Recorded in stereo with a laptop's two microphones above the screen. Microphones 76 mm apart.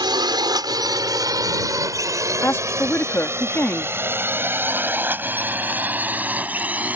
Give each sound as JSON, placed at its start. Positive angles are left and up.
{"t": 0.0, "sound": "a drone", "side_deg": -75}
{"t": 2.4, "sound": "a woman speaking", "side_deg": 30}